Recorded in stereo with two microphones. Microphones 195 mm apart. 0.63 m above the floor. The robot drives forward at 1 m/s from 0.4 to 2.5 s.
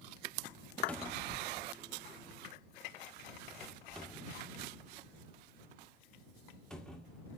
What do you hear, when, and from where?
0.9 s a cupboard door: 5° left (ahead or behind), 0.8 m